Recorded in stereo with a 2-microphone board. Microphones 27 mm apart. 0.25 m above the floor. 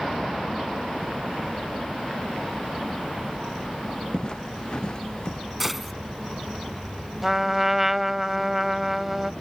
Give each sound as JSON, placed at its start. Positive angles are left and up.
{"t": 4.1, "sound": "footsteps", "side_deg": 35}
{"t": 5.6, "sound": "a gunshot", "side_deg": -5}
{"t": 7.2, "sound": "a trumpet", "side_deg": -10}